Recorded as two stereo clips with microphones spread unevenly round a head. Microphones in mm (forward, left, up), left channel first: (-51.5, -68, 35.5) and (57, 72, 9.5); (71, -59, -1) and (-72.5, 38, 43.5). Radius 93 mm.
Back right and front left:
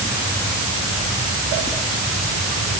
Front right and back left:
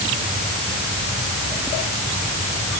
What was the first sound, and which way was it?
Only background noise.